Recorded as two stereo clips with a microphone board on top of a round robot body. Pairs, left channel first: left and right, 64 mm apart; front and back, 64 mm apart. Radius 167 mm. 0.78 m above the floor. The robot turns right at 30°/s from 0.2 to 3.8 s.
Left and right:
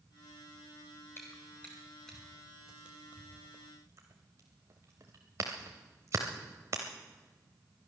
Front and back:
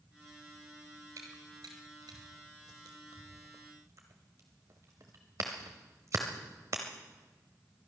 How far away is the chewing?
About 0.7 m.